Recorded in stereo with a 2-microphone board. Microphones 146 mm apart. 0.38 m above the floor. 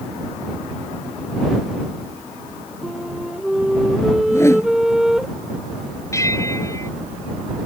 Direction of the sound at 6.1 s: 20° left (ahead or behind).